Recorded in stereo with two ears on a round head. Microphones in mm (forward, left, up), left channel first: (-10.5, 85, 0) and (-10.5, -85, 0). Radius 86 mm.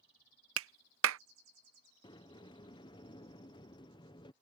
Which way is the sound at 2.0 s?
25° left (ahead or behind).